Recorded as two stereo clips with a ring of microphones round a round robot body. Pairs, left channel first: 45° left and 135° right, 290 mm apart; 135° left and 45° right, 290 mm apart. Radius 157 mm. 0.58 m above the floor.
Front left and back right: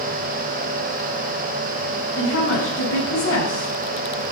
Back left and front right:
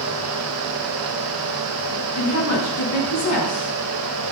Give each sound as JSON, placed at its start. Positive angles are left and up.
{"t": 2.2, "sound": "a woman speaking", "azimuth_deg": 95, "distance_m": 7.0}